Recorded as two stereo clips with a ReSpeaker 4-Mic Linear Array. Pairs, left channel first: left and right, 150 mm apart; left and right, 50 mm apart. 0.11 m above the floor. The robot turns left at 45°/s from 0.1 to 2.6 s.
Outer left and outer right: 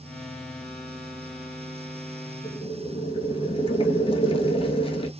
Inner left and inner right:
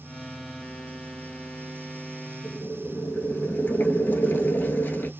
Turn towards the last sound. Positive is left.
turn(degrees=40)  # may be behind; listen again after turning